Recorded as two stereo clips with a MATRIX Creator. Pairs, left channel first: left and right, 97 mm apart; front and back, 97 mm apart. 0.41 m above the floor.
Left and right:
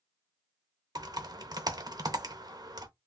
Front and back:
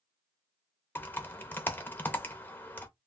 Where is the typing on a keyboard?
60° right, 0.6 m.